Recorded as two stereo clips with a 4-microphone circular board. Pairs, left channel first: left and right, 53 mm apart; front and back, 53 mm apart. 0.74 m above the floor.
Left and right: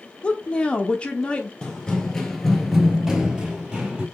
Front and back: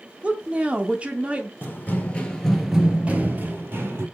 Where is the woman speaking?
140° left, 0.6 m.